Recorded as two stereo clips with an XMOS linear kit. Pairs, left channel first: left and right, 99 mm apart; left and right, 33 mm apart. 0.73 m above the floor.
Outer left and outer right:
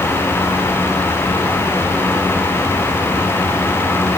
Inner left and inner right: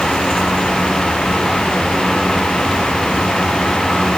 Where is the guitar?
No guitar in this recording.